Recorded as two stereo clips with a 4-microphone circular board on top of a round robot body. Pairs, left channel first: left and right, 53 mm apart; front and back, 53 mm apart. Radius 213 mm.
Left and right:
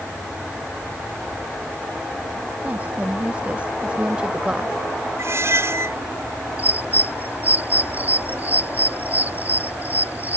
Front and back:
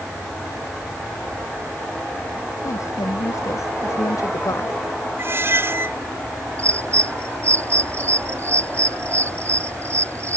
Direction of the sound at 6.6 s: 145° right.